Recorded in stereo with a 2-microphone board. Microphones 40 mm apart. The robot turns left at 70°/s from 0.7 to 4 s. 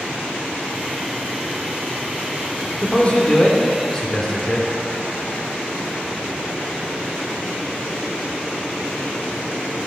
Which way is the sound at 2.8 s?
120° left.